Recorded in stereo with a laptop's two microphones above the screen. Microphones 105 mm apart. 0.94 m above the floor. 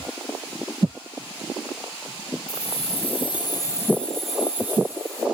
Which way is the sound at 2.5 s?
80° left.